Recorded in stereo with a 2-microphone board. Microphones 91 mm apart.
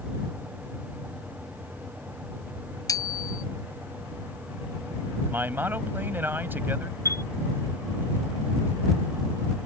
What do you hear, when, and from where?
2.9 s a bicycle bell: 40° left (ahead or behind)
5.3 s a man speaking: 20° right (ahead or behind)
7.0 s a chime: 35° right (ahead or behind)